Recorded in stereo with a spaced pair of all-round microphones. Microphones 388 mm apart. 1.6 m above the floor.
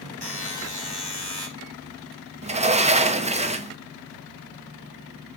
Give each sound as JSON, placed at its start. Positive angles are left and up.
{"t": 0.2, "sound": "a buzzer", "side_deg": 80, "distance_m": 1.9}
{"t": 2.4, "sound": "a sliding door", "side_deg": -15, "distance_m": 0.6}